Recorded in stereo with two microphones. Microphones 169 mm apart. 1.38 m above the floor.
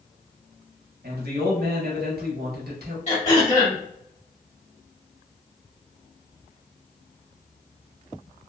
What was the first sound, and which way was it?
A man speaking, 70° right (ahead or behind).